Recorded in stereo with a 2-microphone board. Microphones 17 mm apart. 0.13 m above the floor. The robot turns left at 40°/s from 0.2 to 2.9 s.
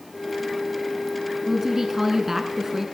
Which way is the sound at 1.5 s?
15° right (ahead or behind).